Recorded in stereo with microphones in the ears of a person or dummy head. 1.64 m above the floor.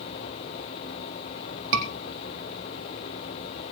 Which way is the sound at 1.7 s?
70° right (ahead or behind).